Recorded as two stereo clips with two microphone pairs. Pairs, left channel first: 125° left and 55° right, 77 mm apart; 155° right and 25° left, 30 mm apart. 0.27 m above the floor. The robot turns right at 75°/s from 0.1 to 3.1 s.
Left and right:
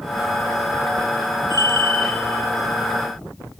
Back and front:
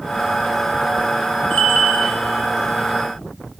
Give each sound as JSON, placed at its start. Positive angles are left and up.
{"t": 1.5, "sound": "a bell", "azimuth_deg": 165, "distance_m": 1.8}